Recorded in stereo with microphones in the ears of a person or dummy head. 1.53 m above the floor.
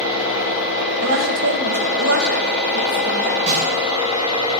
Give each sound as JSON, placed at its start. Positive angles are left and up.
{"t": 1.0, "sound": "a woman speaking", "side_deg": -65, "distance_m": 2.0}
{"t": 3.5, "sound": "a snare drum", "side_deg": -35, "distance_m": 2.5}